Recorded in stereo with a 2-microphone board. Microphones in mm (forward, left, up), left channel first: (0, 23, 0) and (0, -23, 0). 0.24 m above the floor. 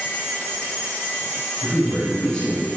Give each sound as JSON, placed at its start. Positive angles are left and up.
{"t": 1.6, "sound": "a man speaking", "side_deg": 15, "distance_m": 1.5}